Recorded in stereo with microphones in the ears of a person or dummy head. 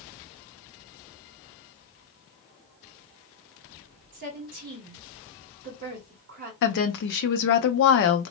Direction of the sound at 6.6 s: 55° left (ahead or behind).